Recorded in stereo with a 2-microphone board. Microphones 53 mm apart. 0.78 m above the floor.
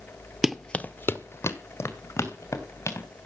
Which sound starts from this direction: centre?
Running footsteps, at 0.4 s.